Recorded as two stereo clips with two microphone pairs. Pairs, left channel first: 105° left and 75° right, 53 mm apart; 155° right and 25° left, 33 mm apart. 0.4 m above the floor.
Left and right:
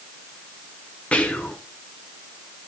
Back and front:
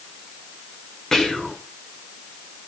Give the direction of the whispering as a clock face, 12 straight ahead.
7 o'clock.